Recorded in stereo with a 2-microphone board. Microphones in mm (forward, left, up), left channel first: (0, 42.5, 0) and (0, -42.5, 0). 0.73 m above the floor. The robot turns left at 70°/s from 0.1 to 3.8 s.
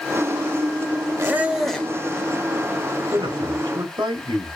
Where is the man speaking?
65° right, 2 m; by 4.6 s 110° right, 2 m.